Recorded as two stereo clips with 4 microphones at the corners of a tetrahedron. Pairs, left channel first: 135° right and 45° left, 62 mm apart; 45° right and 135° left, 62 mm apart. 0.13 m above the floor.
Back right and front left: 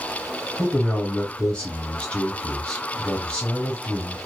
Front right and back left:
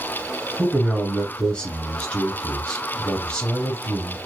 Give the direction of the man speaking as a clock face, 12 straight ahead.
3 o'clock.